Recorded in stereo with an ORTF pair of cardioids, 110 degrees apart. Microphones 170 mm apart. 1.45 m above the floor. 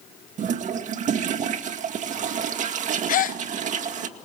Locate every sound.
0.4 s a toilet flushing: 45° right, 2 m
3.1 s a gasp: 55° left, 1.1 m